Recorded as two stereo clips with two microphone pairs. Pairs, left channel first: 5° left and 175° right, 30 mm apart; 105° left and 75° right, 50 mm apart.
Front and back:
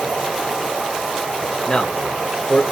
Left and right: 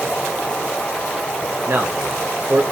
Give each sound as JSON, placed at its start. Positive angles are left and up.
{"t": 0.0, "sound": "an insect", "azimuth_deg": 165, "distance_m": 2.0}
{"t": 1.7, "sound": "a man speaking", "azimuth_deg": -50, "distance_m": 1.4}